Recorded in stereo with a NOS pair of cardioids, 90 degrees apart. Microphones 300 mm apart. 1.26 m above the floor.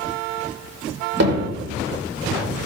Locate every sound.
1.2 s hammering: 55° right, 4 m